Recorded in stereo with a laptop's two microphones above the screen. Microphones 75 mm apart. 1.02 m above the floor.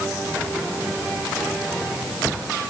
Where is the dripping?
No dripping in this recording.